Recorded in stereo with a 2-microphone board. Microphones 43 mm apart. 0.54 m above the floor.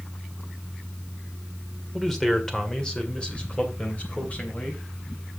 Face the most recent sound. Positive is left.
turn(degrees=40)  # may be behind; listen again after turning